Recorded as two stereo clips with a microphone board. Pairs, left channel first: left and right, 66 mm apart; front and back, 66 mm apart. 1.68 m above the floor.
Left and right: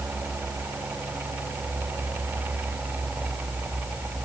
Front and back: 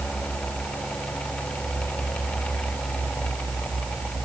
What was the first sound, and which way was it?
Only background noise.